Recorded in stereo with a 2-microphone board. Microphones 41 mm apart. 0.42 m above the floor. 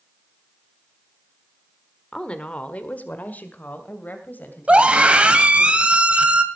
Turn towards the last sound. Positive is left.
turn(degrees=-25)  # may be behind; listen again after turning